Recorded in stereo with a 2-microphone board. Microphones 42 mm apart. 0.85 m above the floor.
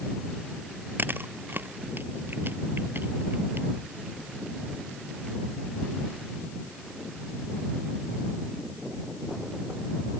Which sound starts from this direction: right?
Chewing, at 1.0 s.